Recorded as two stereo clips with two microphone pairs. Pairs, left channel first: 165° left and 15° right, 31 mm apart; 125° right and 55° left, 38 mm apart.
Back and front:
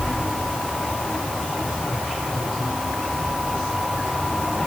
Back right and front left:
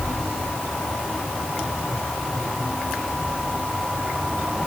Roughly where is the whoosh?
No whoosh in this recording.